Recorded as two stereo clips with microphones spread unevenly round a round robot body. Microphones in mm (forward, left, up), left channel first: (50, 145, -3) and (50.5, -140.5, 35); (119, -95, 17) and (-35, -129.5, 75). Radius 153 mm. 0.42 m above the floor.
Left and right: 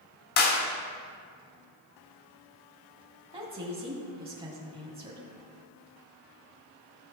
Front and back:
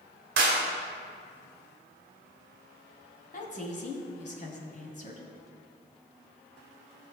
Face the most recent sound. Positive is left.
turn(degrees=-15)